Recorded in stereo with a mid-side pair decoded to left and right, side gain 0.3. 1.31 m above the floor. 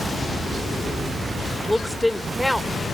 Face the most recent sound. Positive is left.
turn(degrees=5)